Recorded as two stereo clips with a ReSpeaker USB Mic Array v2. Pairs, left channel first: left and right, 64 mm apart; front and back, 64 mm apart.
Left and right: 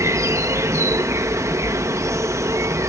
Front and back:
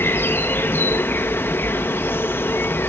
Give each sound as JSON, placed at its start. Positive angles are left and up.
{"t": 0.0, "sound": "an insect", "azimuth_deg": -50}